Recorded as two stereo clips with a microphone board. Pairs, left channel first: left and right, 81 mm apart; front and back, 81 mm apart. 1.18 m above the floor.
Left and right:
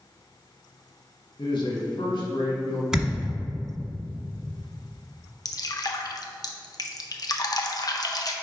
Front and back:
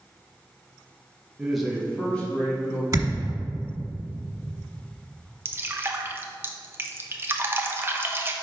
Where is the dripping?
120° left, 0.6 m.